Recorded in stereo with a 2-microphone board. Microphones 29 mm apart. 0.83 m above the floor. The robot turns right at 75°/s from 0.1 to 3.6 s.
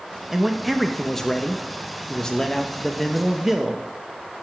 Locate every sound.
0.3 s a man speaking: 10° right (ahead or behind), 0.8 m; by 3.9 s 15° right (ahead or behind), 0.8 m